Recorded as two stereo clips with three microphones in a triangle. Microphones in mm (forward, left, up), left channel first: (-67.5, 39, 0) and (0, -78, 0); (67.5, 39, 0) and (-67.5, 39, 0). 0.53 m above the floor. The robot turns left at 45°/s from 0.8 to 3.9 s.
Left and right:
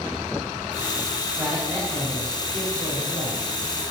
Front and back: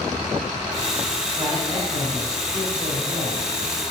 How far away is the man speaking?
About 3 m.